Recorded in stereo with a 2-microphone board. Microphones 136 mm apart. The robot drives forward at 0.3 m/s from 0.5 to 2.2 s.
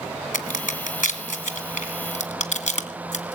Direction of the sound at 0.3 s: 80° left.